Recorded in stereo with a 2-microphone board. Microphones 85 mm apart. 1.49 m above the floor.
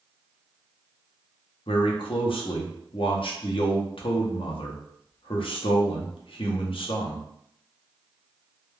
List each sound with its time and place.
1.7 s a man speaking: 75° left (ahead or behind), 0.6 m